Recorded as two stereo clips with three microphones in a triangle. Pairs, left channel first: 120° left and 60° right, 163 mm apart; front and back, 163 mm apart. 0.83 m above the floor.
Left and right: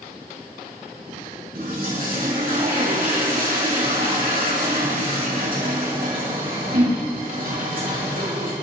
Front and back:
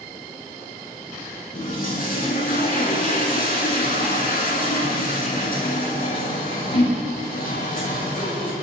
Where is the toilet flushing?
35° right, 5 m.